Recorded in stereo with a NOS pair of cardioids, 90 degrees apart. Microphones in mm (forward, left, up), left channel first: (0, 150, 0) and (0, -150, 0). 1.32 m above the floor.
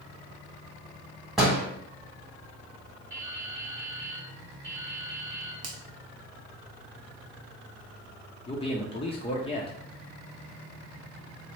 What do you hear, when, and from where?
1.4 s a door slam: straight ahead, 1.4 m
3.1 s dripping: 10° right, 1.3 m
5.6 s a finger snap: 60° right, 0.8 m
8.5 s a man speaking: 20° left, 0.7 m